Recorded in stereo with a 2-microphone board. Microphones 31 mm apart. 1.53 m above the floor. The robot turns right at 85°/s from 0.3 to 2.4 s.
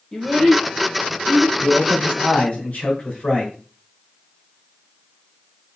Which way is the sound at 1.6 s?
10° right.